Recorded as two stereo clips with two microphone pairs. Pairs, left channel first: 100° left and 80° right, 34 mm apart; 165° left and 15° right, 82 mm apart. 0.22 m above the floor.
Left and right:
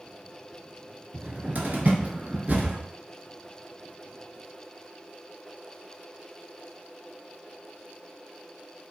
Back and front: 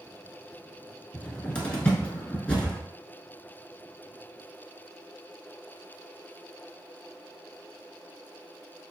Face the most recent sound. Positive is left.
turn(degrees=-120)